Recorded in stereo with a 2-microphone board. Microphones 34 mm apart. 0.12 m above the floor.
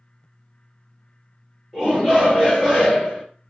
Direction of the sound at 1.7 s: 10° right (ahead or behind).